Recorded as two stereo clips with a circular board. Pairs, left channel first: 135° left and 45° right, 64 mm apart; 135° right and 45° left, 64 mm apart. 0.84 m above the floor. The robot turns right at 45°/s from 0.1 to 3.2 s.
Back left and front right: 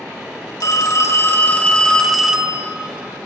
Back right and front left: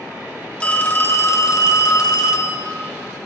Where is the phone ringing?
155° left, 1.1 m; by 2.6 s 115° right, 1.1 m.